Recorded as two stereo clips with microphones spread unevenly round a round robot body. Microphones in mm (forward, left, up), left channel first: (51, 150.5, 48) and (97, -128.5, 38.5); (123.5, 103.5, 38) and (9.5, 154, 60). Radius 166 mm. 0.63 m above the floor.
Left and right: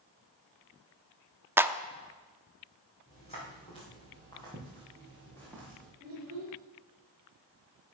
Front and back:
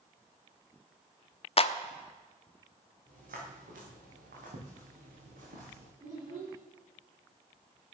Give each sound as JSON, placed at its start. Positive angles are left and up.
{"t": 1.6, "sound": "a clap", "azimuth_deg": 0, "distance_m": 0.8}
{"t": 3.1, "sound": "footsteps", "azimuth_deg": 170, "distance_m": 5.0}
{"t": 6.0, "sound": "a child speaking", "azimuth_deg": -145, "distance_m": 6.0}